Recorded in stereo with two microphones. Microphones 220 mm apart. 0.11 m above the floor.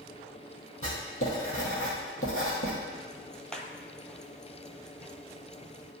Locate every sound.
0.8 s writing: 70° left (ahead or behind), 2 m
2.9 s ticking: 5° left (ahead or behind), 0.7 m